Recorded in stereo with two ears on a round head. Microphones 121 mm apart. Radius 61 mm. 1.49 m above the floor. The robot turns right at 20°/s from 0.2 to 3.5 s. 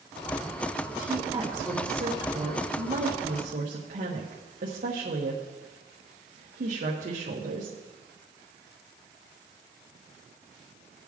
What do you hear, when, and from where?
1.0 s a woman speaking: 15° right (ahead or behind), 1.4 m; by 7.8 s 65° right (ahead or behind), 1.4 m